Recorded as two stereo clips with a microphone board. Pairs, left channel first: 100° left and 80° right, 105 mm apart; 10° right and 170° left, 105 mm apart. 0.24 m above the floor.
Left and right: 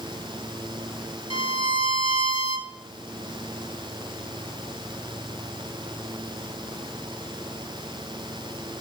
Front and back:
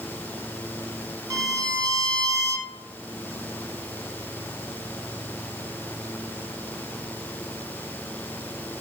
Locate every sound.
1.3 s a violin: 115° left, 1.4 m